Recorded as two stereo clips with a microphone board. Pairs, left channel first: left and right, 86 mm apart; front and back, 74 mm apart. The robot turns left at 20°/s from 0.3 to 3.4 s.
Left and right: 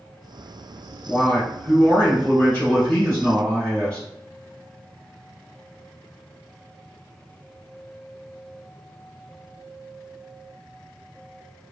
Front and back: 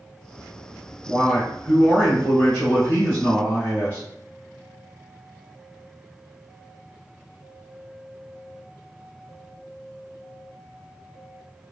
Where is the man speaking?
75° left, 1.4 m; by 4.1 s 30° left, 1.4 m.